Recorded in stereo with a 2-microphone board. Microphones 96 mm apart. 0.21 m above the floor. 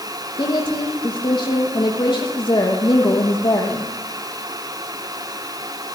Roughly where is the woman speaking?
Left.